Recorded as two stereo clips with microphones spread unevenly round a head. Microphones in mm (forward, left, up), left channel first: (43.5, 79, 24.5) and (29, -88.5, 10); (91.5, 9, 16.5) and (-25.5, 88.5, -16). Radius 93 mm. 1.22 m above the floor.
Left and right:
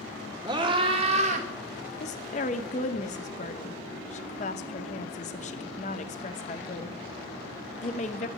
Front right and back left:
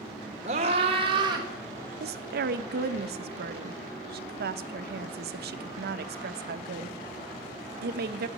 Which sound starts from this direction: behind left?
A woman speaking, at 2.0 s.